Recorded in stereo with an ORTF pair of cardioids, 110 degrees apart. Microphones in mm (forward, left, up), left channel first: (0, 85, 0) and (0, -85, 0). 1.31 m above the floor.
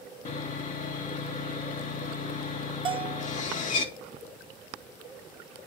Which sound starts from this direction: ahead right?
A bell, at 2.9 s.